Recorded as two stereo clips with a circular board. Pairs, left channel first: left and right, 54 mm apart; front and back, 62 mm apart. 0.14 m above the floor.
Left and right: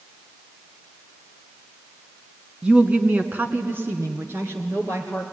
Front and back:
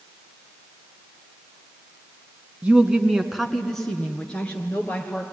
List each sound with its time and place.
2.6 s a woman speaking: 135° right, 1.5 m; by 5.2 s 60° right, 3 m